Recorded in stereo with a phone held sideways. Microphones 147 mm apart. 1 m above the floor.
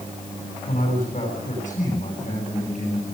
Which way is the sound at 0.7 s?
55° left (ahead or behind).